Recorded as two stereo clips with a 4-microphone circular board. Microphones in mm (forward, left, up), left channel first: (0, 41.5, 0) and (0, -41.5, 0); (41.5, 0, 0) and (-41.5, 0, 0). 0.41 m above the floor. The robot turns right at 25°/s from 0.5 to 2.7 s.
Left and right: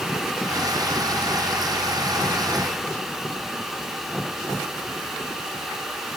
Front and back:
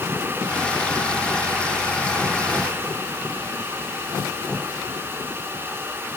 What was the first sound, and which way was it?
Only background noise.